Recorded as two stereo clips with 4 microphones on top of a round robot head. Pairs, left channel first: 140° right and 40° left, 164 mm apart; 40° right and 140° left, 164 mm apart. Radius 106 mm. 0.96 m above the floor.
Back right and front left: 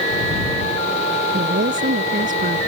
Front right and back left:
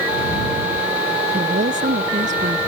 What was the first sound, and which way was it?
A woman speaking, 90° left.